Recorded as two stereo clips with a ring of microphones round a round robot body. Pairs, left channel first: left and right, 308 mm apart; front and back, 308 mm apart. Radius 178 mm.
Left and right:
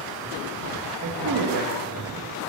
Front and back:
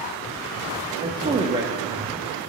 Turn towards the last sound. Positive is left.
turn(degrees=-110)